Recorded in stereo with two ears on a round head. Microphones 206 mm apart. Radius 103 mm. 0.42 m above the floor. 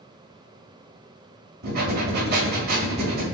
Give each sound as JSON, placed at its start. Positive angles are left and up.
{"t": 1.6, "sound": "breathing", "side_deg": -40, "distance_m": 1.4}